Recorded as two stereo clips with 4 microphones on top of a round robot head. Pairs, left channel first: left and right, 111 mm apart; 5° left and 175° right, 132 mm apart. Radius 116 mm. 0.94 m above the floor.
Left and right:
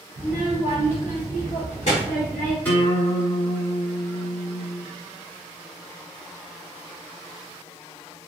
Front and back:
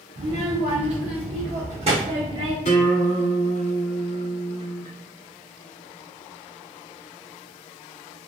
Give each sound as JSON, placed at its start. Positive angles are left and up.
{"t": 0.2, "sound": "a child speaking", "azimuth_deg": 160, "distance_m": 0.8}
{"t": 2.6, "sound": "a guitar", "azimuth_deg": 20, "distance_m": 1.3}